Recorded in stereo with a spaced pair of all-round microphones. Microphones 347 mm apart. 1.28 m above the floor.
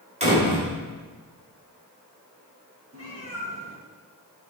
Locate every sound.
0.2 s a door slam: 20° right (ahead or behind), 3.5 m
2.9 s a cat meowing: 45° right (ahead or behind), 2 m